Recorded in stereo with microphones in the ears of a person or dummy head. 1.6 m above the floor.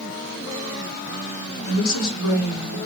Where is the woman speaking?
80° left, 1.0 m.